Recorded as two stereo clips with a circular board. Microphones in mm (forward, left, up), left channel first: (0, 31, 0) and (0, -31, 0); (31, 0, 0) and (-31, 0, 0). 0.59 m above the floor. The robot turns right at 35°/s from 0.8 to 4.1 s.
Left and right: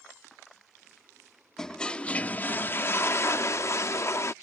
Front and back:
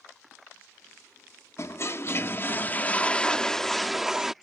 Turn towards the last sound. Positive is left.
turn(degrees=100)